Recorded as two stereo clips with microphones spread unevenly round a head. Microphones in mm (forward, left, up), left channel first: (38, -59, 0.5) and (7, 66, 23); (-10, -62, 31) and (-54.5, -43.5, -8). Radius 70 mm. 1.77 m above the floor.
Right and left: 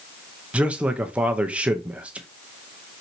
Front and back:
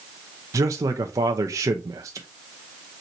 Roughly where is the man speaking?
Left.